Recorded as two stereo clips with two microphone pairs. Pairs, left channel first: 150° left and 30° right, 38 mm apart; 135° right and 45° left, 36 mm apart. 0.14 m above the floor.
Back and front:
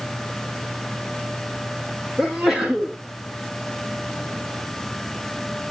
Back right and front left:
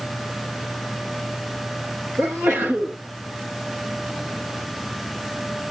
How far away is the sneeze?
About 10 m.